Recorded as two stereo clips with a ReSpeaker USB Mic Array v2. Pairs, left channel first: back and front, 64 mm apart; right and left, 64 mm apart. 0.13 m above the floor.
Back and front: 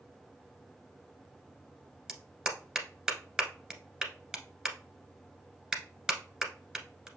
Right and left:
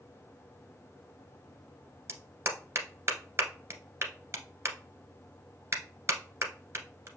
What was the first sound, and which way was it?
A clap, 75° left.